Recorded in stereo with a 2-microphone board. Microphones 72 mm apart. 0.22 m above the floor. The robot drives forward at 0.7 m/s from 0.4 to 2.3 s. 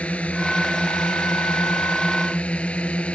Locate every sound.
0.0 s a drone: 15° left (ahead or behind)